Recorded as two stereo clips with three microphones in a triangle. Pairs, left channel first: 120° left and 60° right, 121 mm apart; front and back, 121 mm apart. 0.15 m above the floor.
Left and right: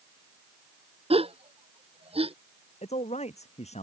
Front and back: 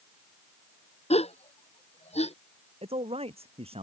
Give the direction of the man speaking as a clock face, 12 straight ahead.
7 o'clock.